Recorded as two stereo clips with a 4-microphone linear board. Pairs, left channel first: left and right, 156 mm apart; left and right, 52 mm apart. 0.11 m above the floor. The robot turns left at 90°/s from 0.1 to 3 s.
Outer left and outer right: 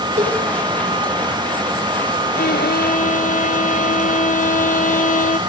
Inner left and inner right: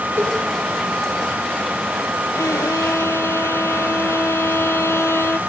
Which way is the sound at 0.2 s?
50° right (ahead or behind).